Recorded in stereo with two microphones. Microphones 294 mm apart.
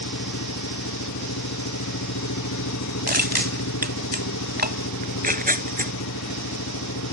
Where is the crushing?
30° right (ahead or behind).